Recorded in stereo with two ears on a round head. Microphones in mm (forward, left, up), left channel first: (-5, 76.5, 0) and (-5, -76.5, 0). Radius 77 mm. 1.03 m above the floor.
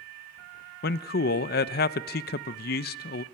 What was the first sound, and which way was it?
A man speaking, 60° left (ahead or behind).